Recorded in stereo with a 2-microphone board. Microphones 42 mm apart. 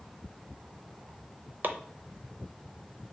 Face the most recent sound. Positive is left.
turn(degrees=-45)  # may be behind; listen again after turning